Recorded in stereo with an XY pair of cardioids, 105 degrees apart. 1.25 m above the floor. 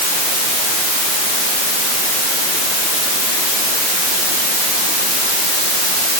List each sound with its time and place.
Only background noise.